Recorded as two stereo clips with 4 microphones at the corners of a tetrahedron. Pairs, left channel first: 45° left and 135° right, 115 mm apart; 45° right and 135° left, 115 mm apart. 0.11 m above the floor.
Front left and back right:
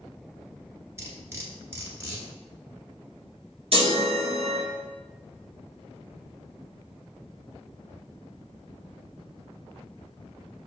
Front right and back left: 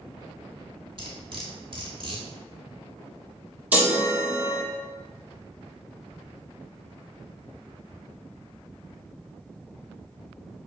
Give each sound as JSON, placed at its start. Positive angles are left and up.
{"t": 1.0, "sound": "cutlery clinking", "azimuth_deg": 160, "distance_m": 1.0}
{"t": 3.7, "sound": "a chime", "azimuth_deg": -155, "distance_m": 1.0}